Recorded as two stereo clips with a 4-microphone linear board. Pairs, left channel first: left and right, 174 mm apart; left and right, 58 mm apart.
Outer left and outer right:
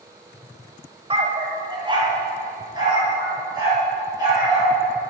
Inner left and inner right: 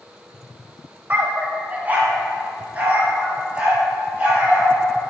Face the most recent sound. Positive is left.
turn(degrees=-20)  # may be behind; listen again after turning